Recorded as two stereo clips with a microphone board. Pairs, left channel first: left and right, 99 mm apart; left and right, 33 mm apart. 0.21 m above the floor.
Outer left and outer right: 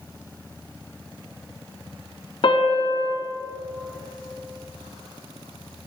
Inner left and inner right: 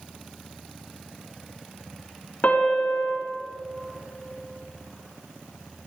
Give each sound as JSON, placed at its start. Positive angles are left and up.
{"t": 2.4, "sound": "a piano", "side_deg": 60, "distance_m": 1.7}